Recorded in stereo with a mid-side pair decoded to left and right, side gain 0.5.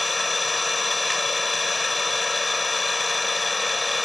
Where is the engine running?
20° left.